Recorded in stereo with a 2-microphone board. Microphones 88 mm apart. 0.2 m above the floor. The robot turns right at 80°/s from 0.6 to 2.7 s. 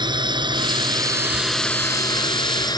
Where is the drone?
60° right (ahead or behind); by 2.8 s 50° left (ahead or behind).